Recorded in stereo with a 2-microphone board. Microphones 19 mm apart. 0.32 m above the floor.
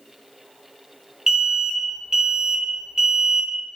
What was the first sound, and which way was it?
An alarm, 35° right (ahead or behind).